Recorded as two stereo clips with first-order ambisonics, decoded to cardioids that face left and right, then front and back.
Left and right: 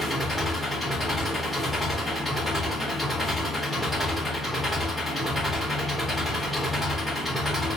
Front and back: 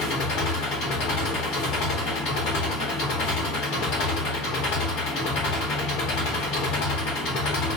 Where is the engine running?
Straight ahead, 1.0 m.